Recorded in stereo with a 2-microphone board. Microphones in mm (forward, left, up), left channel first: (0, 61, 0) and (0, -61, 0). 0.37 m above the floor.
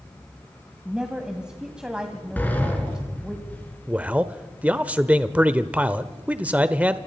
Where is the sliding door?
15° left (ahead or behind), 4 m.